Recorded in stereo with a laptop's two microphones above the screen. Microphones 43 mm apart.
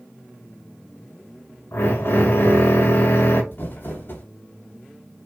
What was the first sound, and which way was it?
A drill, 60° left (ahead or behind).